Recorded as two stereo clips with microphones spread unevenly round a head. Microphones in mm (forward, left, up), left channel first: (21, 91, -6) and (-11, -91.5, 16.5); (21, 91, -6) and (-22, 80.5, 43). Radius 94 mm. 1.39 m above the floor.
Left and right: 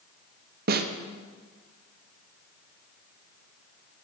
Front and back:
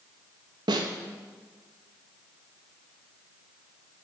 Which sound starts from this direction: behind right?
A snare drum, at 0.7 s.